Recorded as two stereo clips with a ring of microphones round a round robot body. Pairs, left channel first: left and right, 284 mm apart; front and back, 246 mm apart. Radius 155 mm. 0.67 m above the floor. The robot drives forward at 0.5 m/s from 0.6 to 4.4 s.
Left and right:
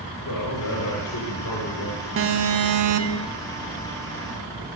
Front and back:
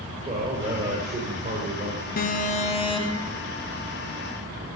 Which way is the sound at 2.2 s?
55° right.